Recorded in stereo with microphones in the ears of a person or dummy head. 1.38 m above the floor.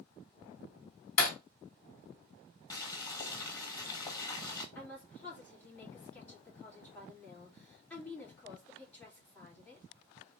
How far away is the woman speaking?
About 2 m.